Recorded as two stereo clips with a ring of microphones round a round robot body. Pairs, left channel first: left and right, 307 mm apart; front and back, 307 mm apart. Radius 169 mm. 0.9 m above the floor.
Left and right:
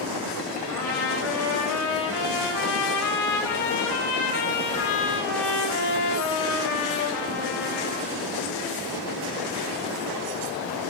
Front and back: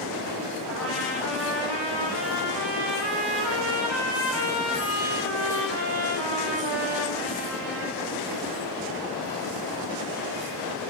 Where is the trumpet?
130° left, 5 m.